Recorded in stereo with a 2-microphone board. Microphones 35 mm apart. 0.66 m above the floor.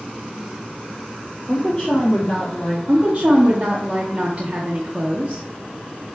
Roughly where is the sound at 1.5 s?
Left.